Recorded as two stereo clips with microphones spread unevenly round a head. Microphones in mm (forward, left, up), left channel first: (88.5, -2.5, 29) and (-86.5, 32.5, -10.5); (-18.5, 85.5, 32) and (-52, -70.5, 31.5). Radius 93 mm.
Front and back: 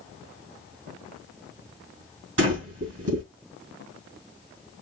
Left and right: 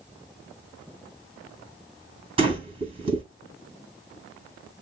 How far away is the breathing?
About 5 m.